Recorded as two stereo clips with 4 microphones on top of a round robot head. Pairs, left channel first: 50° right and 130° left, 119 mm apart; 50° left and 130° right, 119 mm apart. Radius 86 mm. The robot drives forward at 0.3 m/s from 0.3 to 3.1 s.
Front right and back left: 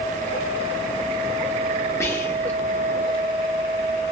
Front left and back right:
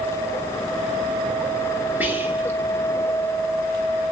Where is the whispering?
75° right, 1.2 m; by 2.6 s 95° right, 1.2 m.